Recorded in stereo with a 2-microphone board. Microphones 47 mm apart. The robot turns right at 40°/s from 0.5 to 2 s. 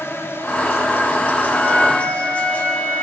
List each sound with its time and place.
0.0 s an insect: 80° left, 3.5 m; by 3.0 s 140° left, 3.5 m
1.5 s a flute: 30° left (ahead or behind), 7.5 m; by 3.0 s 50° left (ahead or behind), 7.5 m